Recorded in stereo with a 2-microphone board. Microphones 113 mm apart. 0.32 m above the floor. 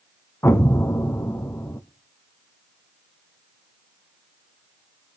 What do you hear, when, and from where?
0.4 s an explosion: 25° left (ahead or behind), 0.6 m